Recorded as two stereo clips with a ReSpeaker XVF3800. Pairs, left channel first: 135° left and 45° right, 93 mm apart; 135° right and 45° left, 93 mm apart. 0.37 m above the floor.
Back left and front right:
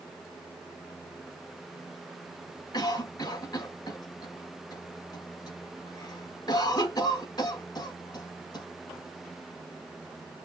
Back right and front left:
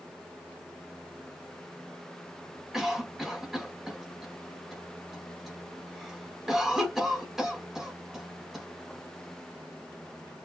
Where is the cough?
130° left, 1.2 m.